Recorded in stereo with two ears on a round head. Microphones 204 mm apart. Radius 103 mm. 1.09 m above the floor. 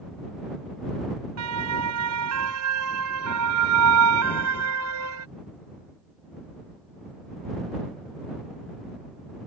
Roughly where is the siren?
Right.